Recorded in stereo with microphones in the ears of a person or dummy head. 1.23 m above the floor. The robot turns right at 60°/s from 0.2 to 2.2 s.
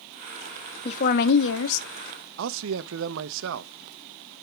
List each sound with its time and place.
0.8 s a woman speaking: 30° left, 0.8 m; by 2.3 s 115° left, 0.8 m
2.4 s a man speaking: 80° right, 0.6 m